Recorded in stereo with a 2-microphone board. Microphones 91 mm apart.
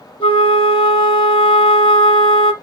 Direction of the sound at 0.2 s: 75° left (ahead or behind).